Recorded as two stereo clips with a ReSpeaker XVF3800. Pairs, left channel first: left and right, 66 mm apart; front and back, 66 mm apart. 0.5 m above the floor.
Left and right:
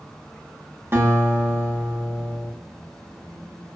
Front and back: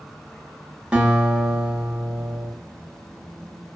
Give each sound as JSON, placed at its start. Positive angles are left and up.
{"t": 0.9, "sound": "a guitar", "azimuth_deg": -115, "distance_m": 0.7}